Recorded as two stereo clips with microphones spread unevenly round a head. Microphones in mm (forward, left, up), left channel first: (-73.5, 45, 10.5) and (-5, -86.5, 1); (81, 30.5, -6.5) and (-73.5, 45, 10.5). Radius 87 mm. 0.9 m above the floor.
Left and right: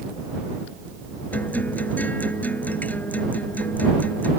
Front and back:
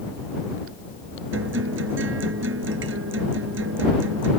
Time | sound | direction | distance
1.3 | a guitar | 165° right | ?